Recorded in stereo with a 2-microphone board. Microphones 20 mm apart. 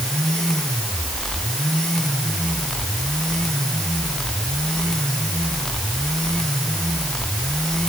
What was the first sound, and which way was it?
Only background noise.